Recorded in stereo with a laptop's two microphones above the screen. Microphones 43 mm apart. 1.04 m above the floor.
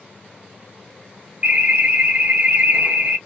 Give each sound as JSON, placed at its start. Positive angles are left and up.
{"t": 1.4, "sound": "an alarm", "side_deg": -35, "distance_m": 1.0}